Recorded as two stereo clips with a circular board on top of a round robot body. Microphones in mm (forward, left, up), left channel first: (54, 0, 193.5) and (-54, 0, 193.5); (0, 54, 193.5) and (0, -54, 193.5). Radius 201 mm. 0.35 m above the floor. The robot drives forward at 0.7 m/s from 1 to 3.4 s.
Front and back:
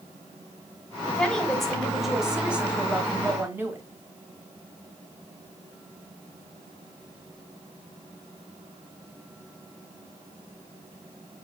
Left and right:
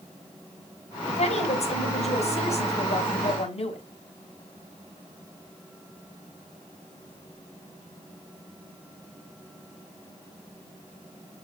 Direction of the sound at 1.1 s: 80° left.